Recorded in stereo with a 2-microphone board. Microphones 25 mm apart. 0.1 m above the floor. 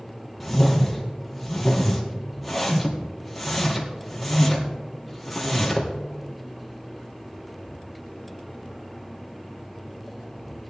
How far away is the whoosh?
About 2 m.